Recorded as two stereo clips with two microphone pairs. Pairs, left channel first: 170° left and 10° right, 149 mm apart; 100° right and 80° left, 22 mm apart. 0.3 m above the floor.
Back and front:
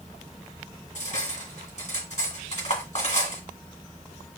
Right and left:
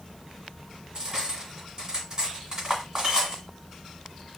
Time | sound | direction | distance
0.9 | cutlery clinking | 140° left | 1.7 m